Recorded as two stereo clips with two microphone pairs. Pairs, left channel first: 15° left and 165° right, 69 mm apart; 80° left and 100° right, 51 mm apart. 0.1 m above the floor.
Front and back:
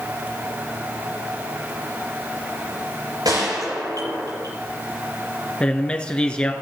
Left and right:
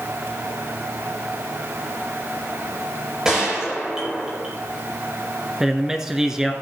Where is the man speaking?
30° right, 1.6 m.